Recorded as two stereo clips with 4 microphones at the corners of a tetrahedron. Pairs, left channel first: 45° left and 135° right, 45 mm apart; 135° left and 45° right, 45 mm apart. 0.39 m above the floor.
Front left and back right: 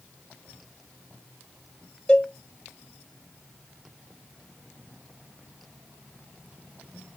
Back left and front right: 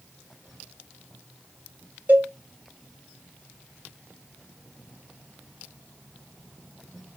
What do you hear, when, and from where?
2.1 s a cowbell: 20° right, 0.8 m